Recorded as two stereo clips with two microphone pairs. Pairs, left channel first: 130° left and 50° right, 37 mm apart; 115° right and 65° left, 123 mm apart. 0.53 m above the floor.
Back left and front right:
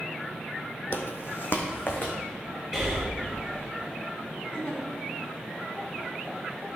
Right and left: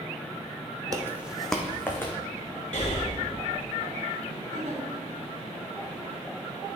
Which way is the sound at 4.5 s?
85° left.